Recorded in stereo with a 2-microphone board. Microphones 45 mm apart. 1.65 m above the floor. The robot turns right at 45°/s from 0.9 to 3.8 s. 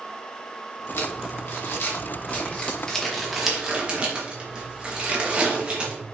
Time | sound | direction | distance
1.0 | crumpling | 80° left | 2.5 m